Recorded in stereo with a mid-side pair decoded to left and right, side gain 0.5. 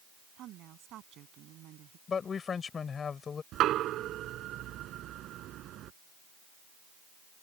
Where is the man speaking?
40° left.